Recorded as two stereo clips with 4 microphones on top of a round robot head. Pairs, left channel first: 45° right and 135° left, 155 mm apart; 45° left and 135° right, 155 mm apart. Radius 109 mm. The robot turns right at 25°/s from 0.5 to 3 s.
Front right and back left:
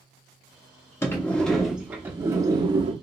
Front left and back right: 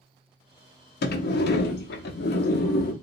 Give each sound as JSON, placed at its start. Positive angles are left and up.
{"t": 1.0, "sound": "a sliding door", "azimuth_deg": 30, "distance_m": 0.5}